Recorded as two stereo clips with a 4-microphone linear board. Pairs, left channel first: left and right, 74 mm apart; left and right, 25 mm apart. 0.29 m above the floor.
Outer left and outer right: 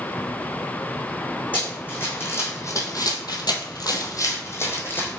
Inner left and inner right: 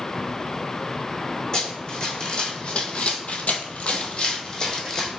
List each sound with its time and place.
1.5 s running footsteps: 25° left (ahead or behind), 1.2 m